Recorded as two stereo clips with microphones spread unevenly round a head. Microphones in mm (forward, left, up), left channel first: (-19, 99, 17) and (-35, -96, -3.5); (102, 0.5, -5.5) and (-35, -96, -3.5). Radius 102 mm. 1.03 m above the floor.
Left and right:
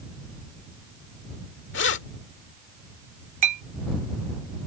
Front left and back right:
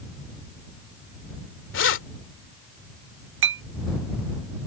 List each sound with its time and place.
1.7 s keys jangling: 45° left
3.4 s a clink: 150° right